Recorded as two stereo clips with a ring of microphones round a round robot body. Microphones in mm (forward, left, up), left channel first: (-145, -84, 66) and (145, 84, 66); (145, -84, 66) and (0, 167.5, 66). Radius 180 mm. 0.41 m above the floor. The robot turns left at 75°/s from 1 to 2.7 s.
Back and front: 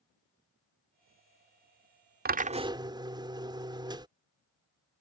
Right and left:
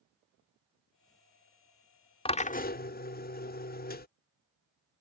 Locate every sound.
2.2 s a drill: 5° right; by 4.1 s 40° right